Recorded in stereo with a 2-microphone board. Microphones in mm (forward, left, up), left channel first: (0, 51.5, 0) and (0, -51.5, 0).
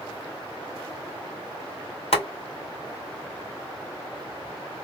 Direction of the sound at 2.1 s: 80° left.